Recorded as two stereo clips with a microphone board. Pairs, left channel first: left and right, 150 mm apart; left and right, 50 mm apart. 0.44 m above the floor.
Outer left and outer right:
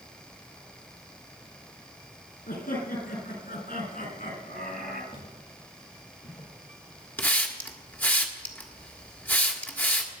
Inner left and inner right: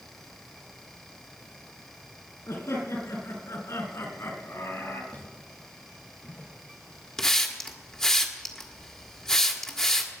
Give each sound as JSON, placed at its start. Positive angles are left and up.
{"t": 2.5, "sound": "laughter", "side_deg": 75, "distance_m": 5.5}
{"t": 5.1, "sound": "footsteps", "side_deg": 40, "distance_m": 8.5}
{"t": 7.2, "sound": "a hiss", "side_deg": 10, "distance_m": 1.5}